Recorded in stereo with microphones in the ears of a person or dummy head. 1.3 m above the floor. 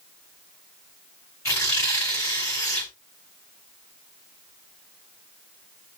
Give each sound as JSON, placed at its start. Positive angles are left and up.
{"t": 1.4, "sound": "tearing paper", "side_deg": 20, "distance_m": 5.0}